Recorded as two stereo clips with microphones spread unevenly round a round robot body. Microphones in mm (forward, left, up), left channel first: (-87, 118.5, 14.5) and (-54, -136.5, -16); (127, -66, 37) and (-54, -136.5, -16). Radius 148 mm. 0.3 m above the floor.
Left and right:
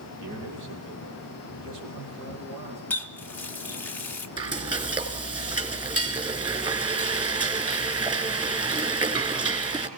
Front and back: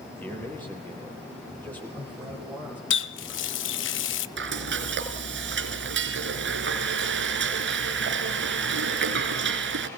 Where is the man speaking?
60° right, 9.5 m.